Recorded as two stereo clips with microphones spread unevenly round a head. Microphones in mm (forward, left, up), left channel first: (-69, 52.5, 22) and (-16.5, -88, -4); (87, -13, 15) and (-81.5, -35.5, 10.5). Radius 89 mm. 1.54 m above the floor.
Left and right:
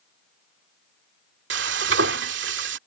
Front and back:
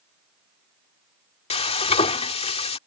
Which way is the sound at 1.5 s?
45° right.